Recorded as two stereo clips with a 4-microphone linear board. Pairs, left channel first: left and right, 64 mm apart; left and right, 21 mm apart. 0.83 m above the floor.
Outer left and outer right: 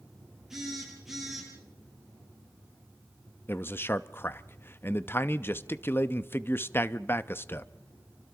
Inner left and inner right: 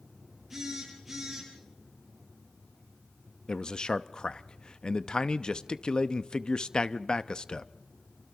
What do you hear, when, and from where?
0.5 s a phone buzzing: 10° right (ahead or behind), 9.5 m
3.5 s a man speaking: 35° left (ahead or behind), 0.7 m